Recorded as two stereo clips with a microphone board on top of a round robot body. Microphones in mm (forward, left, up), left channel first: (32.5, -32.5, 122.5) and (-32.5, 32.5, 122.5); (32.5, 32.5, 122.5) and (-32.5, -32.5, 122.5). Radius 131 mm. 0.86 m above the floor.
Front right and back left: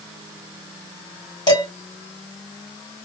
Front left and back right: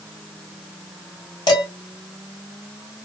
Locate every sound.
1.5 s dishes clattering: straight ahead, 1.7 m